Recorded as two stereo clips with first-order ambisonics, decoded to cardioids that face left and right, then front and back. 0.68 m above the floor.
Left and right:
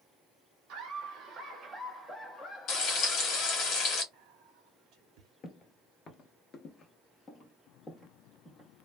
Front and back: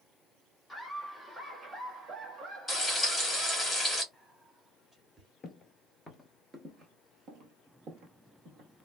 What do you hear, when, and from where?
0.7 s laughter: 95° right, 1.2 m; by 3.7 s 140° left, 1.4 m
2.7 s frying: 90° left, 1.2 m
4.1 s whispering: 100° right, 0.8 m
5.4 s footsteps: 55° left, 0.8 m; by 8.7 s 170° left, 1.5 m